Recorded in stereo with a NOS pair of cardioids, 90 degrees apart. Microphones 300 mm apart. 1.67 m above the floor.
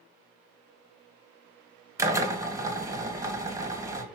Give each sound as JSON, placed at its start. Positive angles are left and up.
{"t": 2.0, "sound": "a drill", "azimuth_deg": -10, "distance_m": 2.0}